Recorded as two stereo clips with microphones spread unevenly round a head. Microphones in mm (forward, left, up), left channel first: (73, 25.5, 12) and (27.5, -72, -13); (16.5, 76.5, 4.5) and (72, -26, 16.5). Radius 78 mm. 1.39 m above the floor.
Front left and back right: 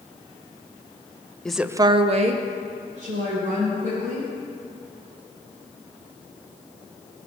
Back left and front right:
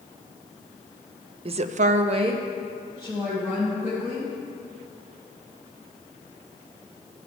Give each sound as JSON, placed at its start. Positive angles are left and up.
{"t": 1.4, "sound": "a woman speaking", "azimuth_deg": -25, "distance_m": 0.6}